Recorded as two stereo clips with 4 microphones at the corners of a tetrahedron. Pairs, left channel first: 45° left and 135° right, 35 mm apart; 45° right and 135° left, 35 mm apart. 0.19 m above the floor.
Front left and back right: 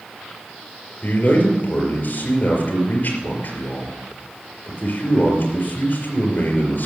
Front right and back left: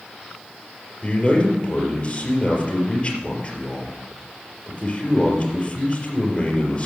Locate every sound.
1.0 s a man speaking: 20° left, 4 m